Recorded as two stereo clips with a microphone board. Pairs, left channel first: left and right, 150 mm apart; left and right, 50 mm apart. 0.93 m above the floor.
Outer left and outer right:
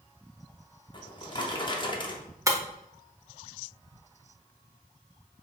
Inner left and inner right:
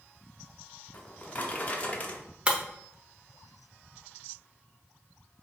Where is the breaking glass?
20° right (ahead or behind), 0.6 m.